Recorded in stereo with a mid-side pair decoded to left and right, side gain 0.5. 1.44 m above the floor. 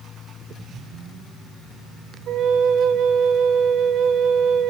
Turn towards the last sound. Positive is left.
turn(degrees=-65)